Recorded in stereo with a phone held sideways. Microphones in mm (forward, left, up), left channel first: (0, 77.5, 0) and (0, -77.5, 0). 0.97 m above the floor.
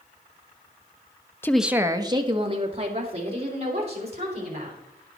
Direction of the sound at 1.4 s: 15° left (ahead or behind).